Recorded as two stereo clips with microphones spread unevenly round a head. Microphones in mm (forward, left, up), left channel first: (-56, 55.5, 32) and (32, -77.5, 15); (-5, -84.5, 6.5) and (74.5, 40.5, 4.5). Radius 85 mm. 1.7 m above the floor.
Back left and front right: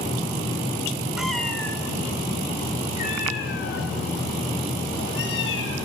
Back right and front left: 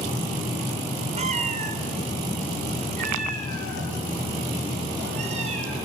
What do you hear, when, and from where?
1.2 s a cat meowing: 35° left, 2.5 m; by 5.8 s 115° left, 5 m